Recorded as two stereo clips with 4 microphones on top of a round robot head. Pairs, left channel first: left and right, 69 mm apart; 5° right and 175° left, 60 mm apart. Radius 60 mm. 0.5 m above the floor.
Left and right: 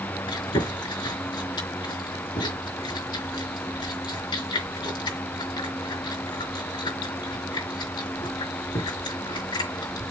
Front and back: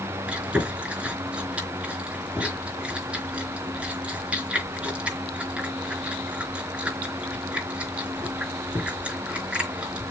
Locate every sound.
0.3 s chewing: 105° left, 4 m